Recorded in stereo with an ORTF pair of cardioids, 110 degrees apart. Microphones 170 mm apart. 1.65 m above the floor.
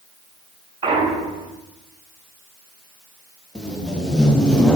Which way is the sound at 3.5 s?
5° left.